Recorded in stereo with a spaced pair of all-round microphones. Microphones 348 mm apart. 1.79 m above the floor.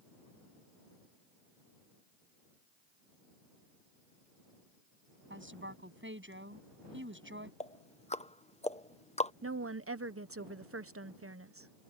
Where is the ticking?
20° left (ahead or behind).